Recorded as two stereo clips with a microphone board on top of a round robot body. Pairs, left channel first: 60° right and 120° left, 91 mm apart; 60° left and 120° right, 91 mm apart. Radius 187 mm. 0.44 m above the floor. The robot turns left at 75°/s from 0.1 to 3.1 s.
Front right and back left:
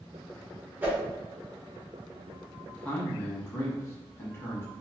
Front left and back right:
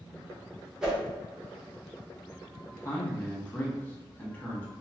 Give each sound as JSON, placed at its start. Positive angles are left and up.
{"t": 0.8, "sound": "a whoosh", "azimuth_deg": 170, "distance_m": 1.3}
{"t": 2.7, "sound": "a man speaking", "azimuth_deg": 20, "distance_m": 1.5}